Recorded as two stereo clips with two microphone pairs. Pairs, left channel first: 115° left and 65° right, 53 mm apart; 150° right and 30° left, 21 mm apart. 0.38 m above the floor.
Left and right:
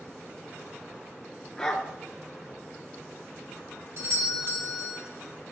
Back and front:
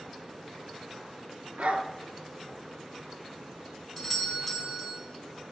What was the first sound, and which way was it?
A dog barking, 40° left.